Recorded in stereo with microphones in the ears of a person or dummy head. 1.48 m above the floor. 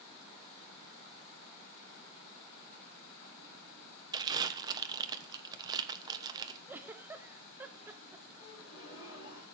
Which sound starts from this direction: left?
A gasp, at 8.4 s.